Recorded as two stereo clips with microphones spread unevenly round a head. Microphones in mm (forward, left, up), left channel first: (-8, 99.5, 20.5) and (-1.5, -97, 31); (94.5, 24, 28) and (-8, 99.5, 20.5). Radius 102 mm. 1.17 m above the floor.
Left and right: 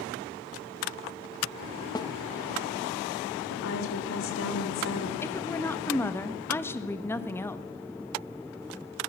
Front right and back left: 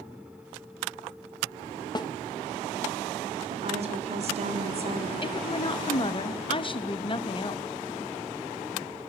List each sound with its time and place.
1.9 s a snare drum: 20° left, 0.8 m
3.5 s a woman speaking: 110° left, 4 m
5.2 s a woman speaking: 15° left, 1.4 m